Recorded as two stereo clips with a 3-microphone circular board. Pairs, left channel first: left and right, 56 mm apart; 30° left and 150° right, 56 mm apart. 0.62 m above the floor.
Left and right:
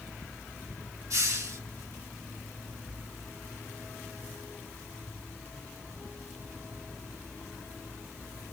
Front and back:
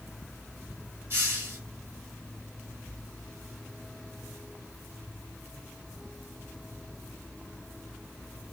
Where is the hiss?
100° right, 2 m.